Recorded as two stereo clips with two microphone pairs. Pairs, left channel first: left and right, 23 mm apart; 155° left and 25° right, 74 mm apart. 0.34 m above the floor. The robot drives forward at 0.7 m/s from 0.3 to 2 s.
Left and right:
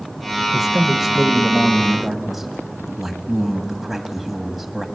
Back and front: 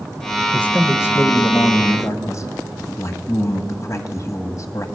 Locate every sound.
0.5 s a man speaking: 150° right, 0.9 m; by 4.9 s 170° right, 1.7 m